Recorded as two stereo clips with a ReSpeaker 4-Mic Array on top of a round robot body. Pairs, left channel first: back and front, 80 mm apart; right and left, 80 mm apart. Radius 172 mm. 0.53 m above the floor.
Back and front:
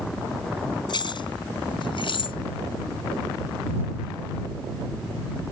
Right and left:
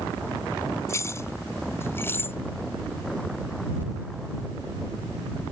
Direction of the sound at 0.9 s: 150° right.